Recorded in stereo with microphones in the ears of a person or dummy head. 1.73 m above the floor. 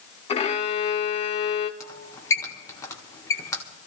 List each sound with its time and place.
0.3 s a violin: 25° left (ahead or behind), 0.6 m
1.8 s a squeak: 15° left (ahead or behind), 1.3 m